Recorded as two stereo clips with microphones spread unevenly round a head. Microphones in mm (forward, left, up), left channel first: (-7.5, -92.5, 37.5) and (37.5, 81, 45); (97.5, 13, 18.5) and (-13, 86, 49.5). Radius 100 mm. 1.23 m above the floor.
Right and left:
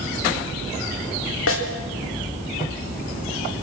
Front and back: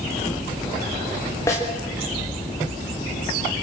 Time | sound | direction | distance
1.5 | a snare drum | 110° right | 3.5 m